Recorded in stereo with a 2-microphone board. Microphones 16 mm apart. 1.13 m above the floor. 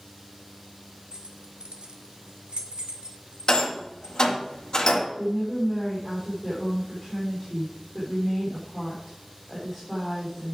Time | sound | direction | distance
1.1 | keys jangling | 50° right (ahead or behind) | 1.3 m
3.5 | a rattle | 60° left (ahead or behind) | 1.9 m
5.2 | a woman speaking | 15° left (ahead or behind) | 3.5 m